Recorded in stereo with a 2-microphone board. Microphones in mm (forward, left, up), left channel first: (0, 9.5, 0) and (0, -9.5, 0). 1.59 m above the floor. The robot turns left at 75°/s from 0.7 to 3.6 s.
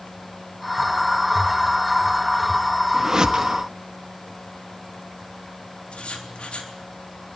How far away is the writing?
About 3.5 m.